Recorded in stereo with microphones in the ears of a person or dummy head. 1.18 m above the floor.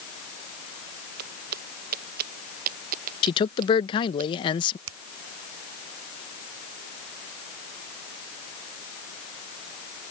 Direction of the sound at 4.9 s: 85° right.